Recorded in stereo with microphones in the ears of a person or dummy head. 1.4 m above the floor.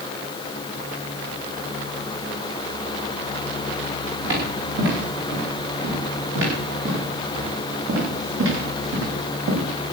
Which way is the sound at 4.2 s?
65° right (ahead or behind).